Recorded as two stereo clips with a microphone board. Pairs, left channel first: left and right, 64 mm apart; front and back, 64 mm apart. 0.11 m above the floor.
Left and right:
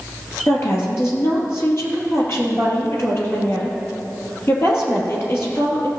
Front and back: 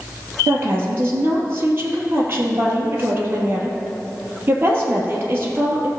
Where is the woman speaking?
130° left, 2 m.